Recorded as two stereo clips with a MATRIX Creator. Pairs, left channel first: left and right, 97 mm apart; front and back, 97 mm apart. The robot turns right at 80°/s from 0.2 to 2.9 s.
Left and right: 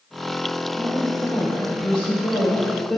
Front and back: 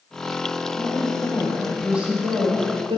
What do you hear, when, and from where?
0.8 s a woman speaking: 10° left, 2.5 m; by 3.0 s straight behind, 2.5 m